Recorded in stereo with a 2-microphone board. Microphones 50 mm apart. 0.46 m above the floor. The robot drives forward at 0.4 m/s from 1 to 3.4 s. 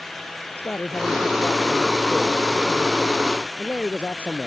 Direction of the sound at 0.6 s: 35° left (ahead or behind).